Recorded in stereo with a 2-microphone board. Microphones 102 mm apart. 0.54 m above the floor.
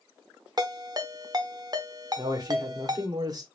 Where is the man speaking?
40° right (ahead or behind), 1.4 m.